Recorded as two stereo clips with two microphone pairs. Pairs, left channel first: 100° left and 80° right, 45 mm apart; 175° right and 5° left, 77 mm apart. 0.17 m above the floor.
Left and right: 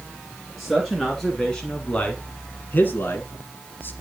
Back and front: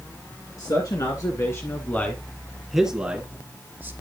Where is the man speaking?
170° right, 2.5 m; by 3.9 s 65° left, 3 m.